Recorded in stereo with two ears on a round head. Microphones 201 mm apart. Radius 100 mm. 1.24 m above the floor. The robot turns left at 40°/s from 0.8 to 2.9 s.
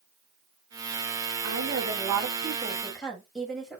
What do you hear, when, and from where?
1.4 s a woman speaking: 125° right, 6.5 m; by 3.8 s straight behind, 6.5 m